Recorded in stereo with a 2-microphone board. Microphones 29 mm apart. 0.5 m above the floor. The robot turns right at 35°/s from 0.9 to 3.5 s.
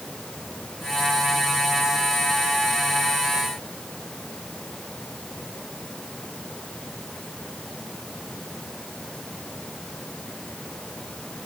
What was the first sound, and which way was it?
Only background noise.